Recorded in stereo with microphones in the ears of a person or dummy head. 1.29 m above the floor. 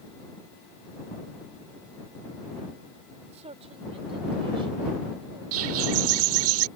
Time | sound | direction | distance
3.3 | a man speaking | 30° right (ahead or behind) | ?
5.5 | a bird | 75° right (ahead or behind) | ?